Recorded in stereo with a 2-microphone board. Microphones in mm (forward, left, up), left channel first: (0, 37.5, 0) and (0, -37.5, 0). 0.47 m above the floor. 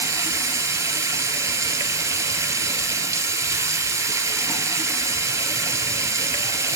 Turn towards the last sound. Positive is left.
turn(degrees=-45)  # may be behind; listen again after turning